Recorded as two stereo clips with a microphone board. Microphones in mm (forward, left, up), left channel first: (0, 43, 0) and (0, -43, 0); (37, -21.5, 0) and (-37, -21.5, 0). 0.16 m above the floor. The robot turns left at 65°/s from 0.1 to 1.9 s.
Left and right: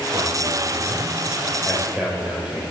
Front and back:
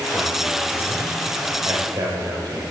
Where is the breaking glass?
No breaking glass in this recording.